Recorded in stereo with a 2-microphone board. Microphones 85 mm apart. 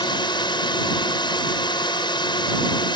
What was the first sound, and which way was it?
A drone, 65° left (ahead or behind).